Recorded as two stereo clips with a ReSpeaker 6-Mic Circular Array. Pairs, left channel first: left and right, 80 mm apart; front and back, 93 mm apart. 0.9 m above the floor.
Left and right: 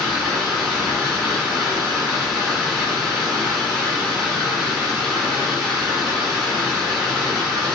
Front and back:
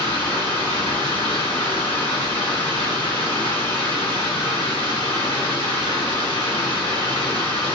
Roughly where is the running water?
Ahead.